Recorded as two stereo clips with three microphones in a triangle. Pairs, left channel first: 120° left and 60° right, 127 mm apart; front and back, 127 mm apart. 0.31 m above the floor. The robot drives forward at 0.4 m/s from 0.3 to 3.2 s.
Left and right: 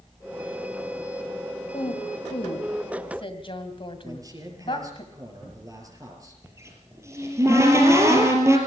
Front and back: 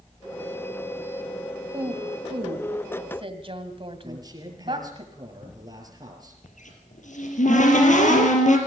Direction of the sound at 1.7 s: 140° left.